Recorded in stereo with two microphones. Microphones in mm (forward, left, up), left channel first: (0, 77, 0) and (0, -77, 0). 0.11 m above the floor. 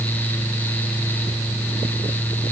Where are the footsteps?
No footsteps in this recording.